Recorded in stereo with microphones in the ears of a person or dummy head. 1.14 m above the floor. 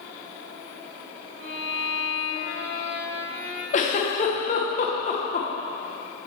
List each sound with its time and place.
1.4 s a violin: 75° right (ahead or behind), 1.7 m
3.7 s a giggle: 35° left (ahead or behind), 0.9 m